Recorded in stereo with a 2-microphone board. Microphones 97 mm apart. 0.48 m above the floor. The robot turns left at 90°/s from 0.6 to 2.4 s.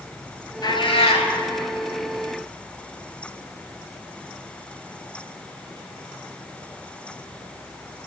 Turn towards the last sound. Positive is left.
turn(degrees=-25)